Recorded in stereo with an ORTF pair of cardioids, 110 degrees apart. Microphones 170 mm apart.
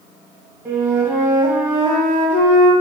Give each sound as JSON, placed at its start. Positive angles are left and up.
{"t": 0.7, "sound": "a flute", "azimuth_deg": -10, "distance_m": 1.2}